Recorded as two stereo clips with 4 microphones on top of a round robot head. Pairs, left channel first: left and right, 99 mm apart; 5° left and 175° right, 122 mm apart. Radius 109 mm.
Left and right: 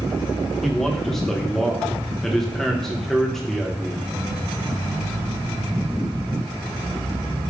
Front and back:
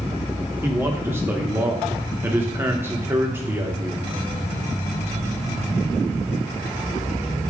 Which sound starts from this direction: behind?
A man speaking, at 0.6 s.